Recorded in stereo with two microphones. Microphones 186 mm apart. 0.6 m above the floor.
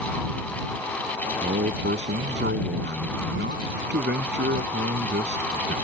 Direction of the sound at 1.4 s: 75° right (ahead or behind).